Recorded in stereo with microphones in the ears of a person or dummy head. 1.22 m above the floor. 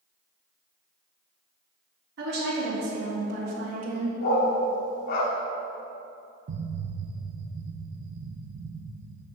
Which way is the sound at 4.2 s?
60° left (ahead or behind).